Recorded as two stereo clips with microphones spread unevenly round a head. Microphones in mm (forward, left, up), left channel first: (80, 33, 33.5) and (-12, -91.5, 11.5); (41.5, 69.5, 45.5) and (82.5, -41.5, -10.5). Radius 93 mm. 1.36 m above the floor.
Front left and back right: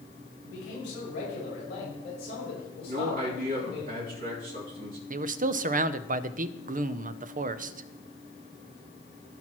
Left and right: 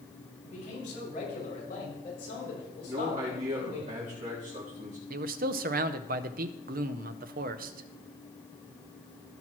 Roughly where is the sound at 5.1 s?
Right.